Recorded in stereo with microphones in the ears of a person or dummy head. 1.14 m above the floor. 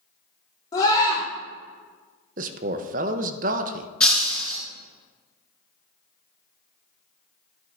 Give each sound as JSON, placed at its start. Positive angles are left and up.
{"t": 0.7, "sound": "a scream", "side_deg": 20, "distance_m": 2.5}
{"t": 2.4, "sound": "a man speaking", "side_deg": -40, "distance_m": 0.6}
{"t": 4.0, "sound": "breaking glass", "side_deg": 5, "distance_m": 2.5}